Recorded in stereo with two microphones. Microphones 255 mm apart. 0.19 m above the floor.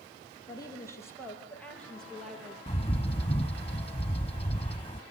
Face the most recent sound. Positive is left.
turn(degrees=20)  # may be behind; listen again after turning